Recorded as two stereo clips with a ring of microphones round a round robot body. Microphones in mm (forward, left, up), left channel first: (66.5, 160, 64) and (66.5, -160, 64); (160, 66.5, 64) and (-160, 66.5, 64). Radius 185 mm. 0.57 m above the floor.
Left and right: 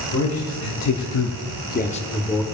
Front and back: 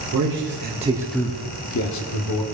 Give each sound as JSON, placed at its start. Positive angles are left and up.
{"t": 0.1, "sound": "a man speaking", "azimuth_deg": 135, "distance_m": 1.9}